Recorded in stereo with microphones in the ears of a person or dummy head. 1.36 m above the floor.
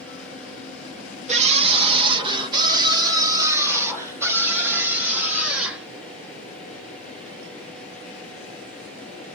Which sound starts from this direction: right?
A scream, at 1.3 s.